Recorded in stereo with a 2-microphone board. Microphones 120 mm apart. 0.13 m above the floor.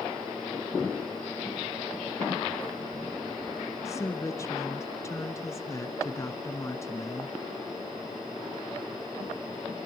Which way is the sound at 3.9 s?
25° left (ahead or behind).